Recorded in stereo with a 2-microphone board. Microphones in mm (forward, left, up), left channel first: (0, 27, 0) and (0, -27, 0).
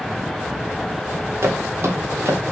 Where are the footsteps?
50° right (ahead or behind), 3 m.